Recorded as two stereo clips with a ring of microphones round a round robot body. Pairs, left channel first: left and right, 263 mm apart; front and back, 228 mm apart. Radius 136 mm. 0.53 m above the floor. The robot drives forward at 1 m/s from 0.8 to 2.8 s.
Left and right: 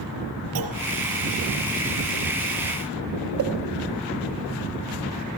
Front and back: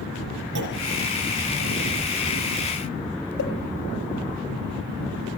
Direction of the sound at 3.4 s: 50° right.